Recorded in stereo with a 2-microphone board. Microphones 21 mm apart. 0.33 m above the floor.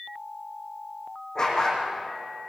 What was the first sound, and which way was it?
A dog barking, 25° left (ahead or behind).